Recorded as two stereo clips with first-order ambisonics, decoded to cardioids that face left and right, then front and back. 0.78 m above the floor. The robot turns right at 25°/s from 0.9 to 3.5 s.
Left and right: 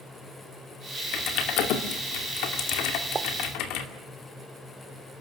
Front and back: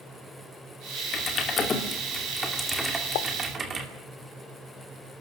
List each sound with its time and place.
1.1 s typing on a keyboard: 55° left, 2.5 m; by 3.9 s 115° left, 2.5 m
3.1 s a pop: 20° right, 0.7 m